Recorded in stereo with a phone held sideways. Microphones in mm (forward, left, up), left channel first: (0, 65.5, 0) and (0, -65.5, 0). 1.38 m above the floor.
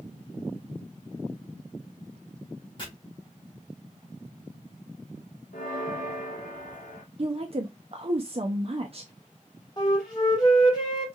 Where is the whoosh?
I don't hear a whoosh.